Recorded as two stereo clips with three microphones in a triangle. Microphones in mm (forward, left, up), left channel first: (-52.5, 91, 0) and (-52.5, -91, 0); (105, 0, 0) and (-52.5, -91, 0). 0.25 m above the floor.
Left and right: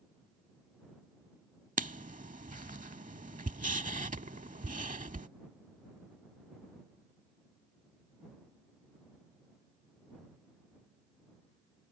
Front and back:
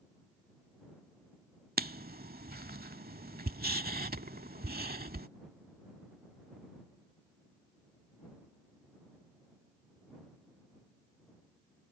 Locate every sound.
1.8 s writing: 130° right